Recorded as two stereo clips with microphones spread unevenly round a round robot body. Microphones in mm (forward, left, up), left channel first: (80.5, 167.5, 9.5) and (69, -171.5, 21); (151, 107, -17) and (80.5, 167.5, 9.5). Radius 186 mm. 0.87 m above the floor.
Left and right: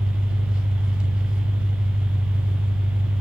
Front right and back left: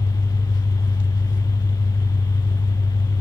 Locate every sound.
0.0 s an engine running: 5° right, 4.5 m